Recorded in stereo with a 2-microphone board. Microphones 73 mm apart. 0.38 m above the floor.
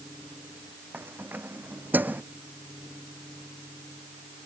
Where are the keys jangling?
25° right (ahead or behind).